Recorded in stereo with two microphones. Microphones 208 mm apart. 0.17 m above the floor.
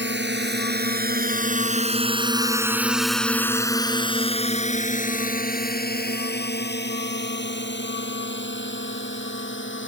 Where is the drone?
60° right (ahead or behind); by 9.9 s 65° left (ahead or behind).